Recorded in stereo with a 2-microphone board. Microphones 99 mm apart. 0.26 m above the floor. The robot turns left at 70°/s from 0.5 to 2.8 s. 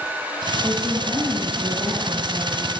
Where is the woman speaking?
15° left, 7 m; by 2.7 s 130° right, 7 m.